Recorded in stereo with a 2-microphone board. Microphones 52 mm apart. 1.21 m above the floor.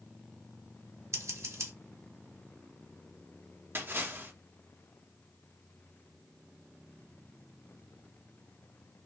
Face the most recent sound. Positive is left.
turn(degrees=-45)  # may be behind; listen again after turning